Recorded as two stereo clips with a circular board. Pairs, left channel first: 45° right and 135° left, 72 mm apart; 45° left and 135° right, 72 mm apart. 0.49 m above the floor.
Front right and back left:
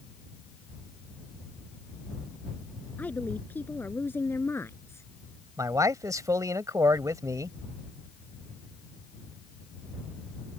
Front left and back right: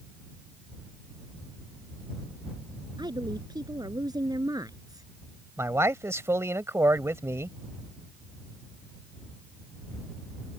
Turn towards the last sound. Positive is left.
turn(degrees=175)